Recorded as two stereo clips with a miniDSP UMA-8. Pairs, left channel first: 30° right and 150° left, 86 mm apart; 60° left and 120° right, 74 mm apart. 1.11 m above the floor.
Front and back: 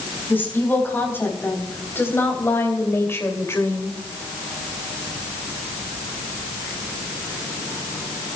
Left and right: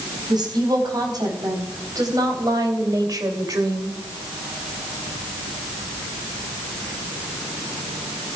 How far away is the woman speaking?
About 4 m.